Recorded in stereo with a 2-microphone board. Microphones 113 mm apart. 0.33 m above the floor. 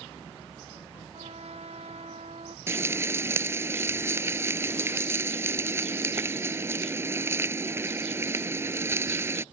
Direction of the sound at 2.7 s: 25° right (ahead or behind).